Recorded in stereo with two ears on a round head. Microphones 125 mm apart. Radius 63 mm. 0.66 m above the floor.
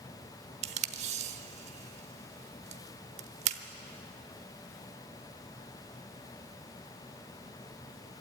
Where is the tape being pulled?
45° right (ahead or behind), 0.8 m.